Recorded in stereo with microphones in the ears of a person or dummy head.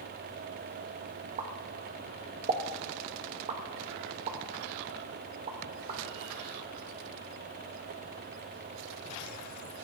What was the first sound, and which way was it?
A pop, 30° right (ahead or behind).